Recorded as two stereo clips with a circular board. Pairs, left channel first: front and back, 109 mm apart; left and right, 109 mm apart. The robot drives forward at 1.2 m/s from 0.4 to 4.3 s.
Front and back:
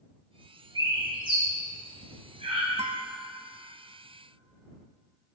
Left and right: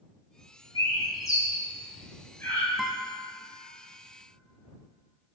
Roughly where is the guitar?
Behind.